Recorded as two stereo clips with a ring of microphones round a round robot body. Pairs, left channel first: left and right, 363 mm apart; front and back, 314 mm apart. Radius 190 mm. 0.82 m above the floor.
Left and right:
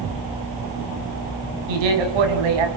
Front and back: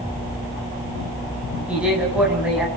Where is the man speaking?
95° right, 5.5 m.